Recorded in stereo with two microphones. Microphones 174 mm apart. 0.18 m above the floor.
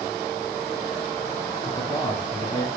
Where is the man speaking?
25° left (ahead or behind), 1.9 m.